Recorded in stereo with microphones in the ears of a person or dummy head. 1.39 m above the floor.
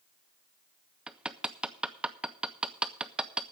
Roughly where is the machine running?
I don't hear a machine running.